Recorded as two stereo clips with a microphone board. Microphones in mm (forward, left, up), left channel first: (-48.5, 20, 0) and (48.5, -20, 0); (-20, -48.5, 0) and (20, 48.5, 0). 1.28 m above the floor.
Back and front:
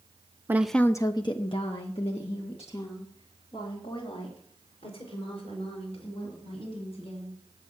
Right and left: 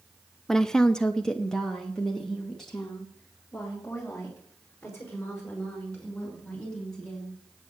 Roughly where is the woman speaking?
Ahead right.